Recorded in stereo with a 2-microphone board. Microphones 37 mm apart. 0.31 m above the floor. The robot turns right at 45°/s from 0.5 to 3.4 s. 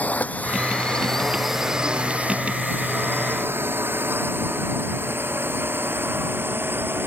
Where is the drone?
45° left (ahead or behind); by 7.1 s 80° right.